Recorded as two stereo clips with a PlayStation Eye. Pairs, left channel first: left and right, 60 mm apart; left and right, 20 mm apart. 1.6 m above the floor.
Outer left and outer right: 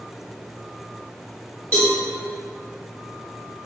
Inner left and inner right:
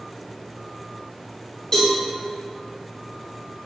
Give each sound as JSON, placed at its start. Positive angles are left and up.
{"t": 1.7, "sound": "a cowbell", "side_deg": 30, "distance_m": 1.4}